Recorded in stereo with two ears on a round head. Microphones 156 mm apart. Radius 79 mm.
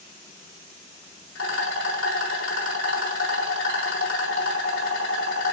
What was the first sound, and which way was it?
A rattle, 80° left.